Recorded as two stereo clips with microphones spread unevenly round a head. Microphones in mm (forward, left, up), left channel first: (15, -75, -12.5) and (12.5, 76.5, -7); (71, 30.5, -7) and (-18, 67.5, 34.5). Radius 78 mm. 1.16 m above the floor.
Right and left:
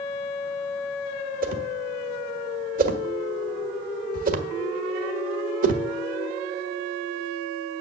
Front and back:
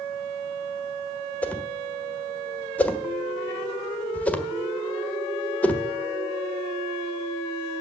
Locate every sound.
1.4 s a whoosh: 65° left, 1.4 m